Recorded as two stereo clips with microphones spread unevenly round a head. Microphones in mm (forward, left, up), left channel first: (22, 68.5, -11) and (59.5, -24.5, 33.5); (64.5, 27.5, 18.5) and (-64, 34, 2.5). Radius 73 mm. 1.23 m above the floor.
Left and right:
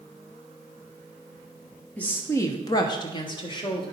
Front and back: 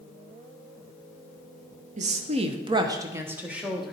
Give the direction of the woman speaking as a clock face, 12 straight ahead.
6 o'clock.